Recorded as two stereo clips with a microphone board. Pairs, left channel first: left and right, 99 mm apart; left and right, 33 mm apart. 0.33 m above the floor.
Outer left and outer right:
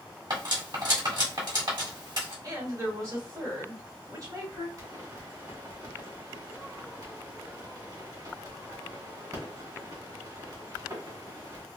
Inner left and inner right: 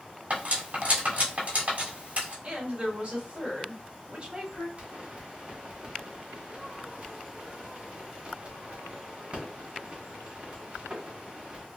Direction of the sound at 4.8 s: 45° right (ahead or behind).